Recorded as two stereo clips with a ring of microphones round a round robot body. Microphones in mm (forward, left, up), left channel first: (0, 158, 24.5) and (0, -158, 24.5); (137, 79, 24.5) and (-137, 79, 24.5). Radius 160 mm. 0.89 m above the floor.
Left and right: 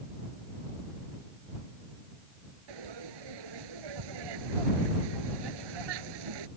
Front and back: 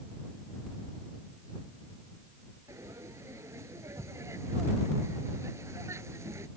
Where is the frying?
100° right.